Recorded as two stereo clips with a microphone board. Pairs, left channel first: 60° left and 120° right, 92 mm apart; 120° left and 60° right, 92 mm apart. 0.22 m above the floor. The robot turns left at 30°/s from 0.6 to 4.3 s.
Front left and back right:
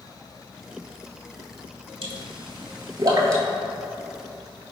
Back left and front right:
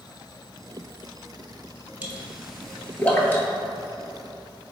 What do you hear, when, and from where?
2.0 s a pop: 135° right, 0.6 m; by 3.4 s 175° right, 0.6 m